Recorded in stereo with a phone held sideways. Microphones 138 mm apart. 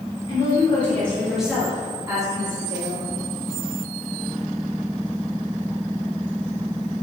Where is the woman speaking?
30° left (ahead or behind), 3 m; by 3.0 s 40° right (ahead or behind), 4 m.